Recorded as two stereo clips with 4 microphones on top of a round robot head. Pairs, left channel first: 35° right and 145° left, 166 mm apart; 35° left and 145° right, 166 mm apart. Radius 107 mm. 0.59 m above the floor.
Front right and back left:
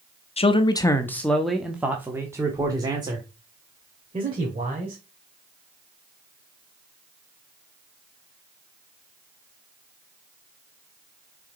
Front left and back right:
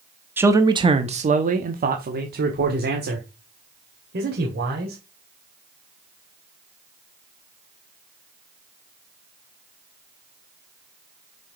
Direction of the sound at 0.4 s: 70° right.